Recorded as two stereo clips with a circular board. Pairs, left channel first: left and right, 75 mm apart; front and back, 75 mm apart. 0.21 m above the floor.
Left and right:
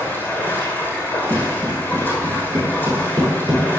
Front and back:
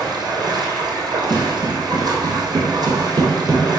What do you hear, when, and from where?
0.0 s running water: 155° left, 3 m
1.3 s footsteps: 155° right, 4 m; by 3.7 s 125° right, 4.5 m